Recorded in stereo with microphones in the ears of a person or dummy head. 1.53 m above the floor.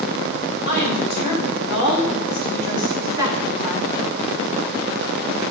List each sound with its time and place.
0.7 s a woman speaking: 35° right (ahead or behind), 5.5 m; by 4.1 s 5° right (ahead or behind), 2.5 m